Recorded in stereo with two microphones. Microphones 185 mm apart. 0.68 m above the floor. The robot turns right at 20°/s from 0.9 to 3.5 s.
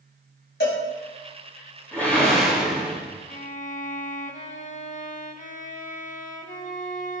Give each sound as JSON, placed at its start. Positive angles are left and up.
{"t": 0.6, "sound": "a cowbell", "side_deg": 75, "distance_m": 2.5}
{"t": 1.9, "sound": "a whoosh", "side_deg": 10, "distance_m": 2.5}
{"t": 3.3, "sound": "a violin", "side_deg": 40, "distance_m": 0.6}